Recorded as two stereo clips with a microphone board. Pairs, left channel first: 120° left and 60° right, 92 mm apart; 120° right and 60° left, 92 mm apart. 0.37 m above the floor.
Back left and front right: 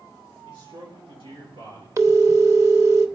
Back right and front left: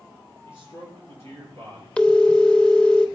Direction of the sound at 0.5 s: 65° right.